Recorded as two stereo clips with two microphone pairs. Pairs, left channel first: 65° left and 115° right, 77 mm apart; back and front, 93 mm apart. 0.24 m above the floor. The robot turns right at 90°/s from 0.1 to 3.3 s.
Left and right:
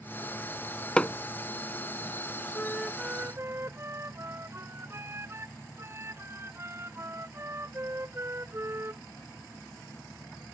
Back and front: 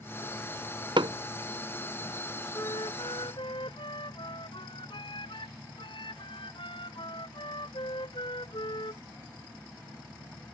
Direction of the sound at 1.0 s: 15° right.